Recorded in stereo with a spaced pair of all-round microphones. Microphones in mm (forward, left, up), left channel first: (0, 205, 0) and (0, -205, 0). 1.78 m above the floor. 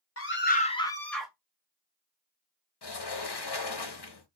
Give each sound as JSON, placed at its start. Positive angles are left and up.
{"t": 0.2, "sound": "a scream", "side_deg": 35, "distance_m": 0.7}
{"t": 2.8, "sound": "a sliding door", "side_deg": 65, "distance_m": 0.8}